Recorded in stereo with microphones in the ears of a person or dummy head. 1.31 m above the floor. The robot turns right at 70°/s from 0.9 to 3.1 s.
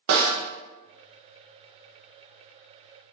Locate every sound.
0.1 s a snare drum: 60° right (ahead or behind), 0.7 m